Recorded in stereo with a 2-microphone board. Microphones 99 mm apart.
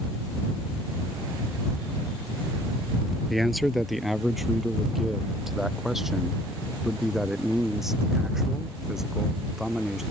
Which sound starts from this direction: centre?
A man speaking, at 3.3 s.